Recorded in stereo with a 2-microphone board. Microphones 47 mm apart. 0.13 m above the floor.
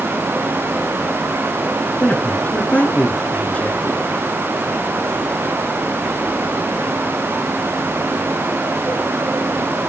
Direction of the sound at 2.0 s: 30° left (ahead or behind).